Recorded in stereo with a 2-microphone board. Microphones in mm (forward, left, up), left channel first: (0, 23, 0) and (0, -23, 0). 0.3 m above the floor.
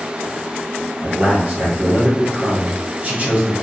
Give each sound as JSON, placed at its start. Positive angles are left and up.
{"t": 1.0, "sound": "a man speaking", "side_deg": -30, "distance_m": 1.1}